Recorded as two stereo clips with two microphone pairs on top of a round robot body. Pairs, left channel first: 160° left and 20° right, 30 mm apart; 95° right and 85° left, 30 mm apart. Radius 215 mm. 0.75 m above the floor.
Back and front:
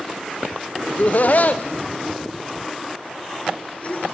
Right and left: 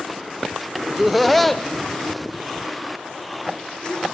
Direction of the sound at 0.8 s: 160° left.